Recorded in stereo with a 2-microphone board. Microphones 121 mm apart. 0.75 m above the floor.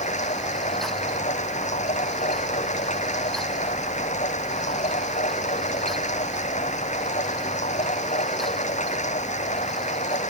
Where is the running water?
90° left.